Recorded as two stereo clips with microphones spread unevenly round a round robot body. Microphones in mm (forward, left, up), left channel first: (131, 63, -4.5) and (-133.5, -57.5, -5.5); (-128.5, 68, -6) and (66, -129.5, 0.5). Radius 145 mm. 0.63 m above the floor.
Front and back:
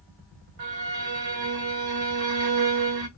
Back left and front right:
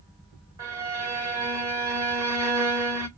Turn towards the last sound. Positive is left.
turn(degrees=-125)